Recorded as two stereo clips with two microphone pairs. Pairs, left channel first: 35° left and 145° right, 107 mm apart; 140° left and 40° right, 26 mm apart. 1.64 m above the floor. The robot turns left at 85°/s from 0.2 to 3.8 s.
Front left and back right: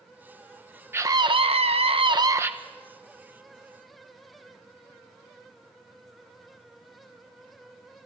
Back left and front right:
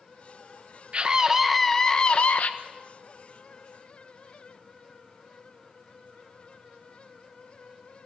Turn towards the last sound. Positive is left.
turn(degrees=40)